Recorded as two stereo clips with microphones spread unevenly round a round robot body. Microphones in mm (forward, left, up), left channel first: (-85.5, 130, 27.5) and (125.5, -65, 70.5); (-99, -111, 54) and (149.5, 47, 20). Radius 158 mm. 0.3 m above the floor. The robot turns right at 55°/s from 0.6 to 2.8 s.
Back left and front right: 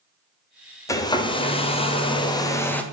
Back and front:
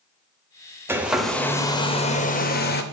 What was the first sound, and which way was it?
A hair dryer, 90° left.